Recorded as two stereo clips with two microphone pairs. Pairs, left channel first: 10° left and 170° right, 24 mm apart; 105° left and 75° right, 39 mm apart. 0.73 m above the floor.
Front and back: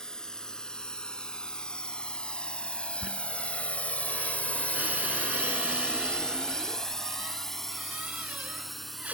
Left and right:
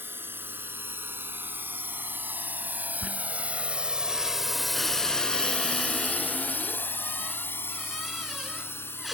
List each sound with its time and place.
0.0 s a drone: 50° right; by 9.2 s 95° left
3.0 s a squeak: 160° right